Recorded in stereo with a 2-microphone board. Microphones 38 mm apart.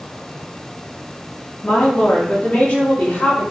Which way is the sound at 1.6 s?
50° left (ahead or behind).